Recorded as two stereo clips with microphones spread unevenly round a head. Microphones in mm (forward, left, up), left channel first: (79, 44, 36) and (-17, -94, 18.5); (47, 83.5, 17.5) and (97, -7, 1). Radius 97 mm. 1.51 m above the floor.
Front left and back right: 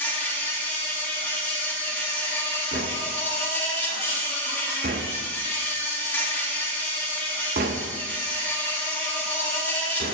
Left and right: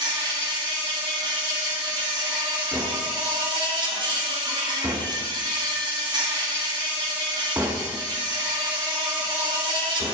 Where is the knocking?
140° right, 0.9 m.